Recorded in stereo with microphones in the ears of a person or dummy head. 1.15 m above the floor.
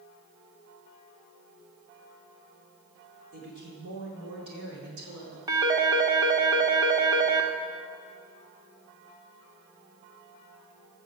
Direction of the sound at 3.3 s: 50° right (ahead or behind).